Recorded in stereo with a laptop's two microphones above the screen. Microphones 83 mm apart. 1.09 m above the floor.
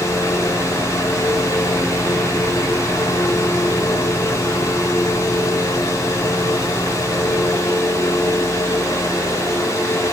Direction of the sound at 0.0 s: 40° left (ahead or behind).